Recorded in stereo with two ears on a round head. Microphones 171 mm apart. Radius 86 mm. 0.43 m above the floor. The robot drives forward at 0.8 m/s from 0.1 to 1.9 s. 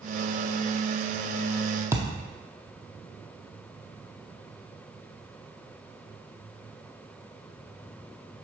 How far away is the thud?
About 0.9 m.